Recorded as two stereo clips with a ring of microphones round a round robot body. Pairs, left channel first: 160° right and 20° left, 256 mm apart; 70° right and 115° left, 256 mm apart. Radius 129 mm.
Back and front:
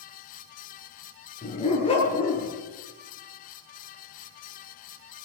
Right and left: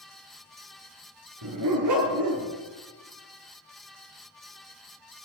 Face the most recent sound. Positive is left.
turn(degrees=130)